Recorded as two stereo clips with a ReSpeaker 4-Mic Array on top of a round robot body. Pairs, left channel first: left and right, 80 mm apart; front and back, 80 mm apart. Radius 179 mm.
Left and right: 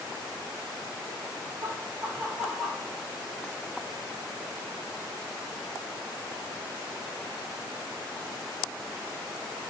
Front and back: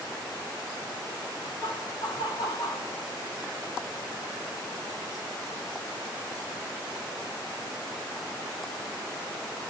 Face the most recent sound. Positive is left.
turn(degrees=0)